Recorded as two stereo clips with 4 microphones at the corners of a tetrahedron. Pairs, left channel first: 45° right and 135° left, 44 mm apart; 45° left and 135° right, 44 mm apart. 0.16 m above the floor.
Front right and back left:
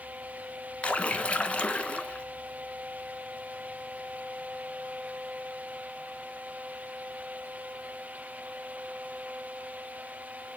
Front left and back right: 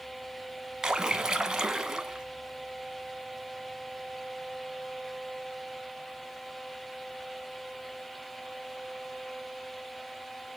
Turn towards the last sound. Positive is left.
turn(degrees=-70)